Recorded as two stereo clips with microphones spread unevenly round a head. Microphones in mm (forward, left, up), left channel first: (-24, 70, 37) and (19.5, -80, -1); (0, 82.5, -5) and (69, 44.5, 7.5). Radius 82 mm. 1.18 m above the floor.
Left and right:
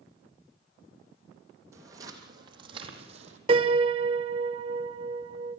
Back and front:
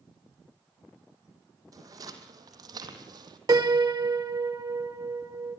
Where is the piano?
15° right, 1.3 m.